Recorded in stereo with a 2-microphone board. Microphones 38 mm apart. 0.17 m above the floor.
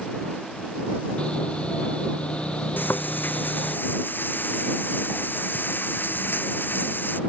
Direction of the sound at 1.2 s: 30° left (ahead or behind).